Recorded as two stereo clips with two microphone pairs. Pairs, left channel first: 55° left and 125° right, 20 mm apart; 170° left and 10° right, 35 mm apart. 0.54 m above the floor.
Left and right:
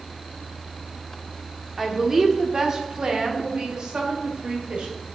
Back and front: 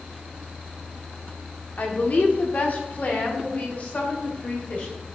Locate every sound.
1.8 s a woman speaking: 165° left, 1.3 m; by 4.9 s 140° right, 2.5 m